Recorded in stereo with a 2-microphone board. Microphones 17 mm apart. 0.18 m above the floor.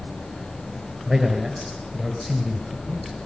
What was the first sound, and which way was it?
A man speaking, 20° right (ahead or behind).